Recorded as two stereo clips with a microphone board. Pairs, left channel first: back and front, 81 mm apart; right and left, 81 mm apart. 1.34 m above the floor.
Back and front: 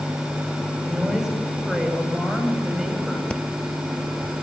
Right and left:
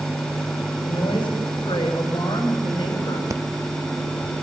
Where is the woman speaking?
85° right, 8.5 m.